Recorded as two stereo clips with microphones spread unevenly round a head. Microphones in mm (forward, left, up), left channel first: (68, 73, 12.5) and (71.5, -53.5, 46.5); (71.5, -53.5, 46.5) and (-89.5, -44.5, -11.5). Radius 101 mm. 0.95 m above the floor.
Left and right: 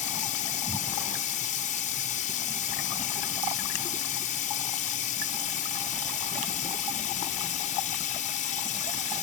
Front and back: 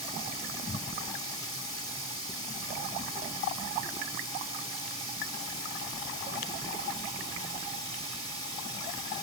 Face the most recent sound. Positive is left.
turn(degrees=70)